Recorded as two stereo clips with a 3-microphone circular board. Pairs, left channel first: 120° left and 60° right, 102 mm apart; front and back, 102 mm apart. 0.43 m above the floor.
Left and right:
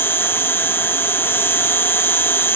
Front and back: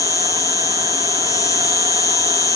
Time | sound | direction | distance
0.0 | an insect | 55° left | ?